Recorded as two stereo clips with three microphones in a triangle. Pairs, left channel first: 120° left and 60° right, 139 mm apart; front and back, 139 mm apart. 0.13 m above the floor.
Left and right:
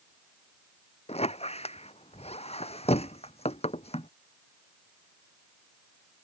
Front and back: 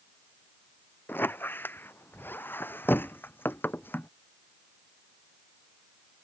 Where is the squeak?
75° left.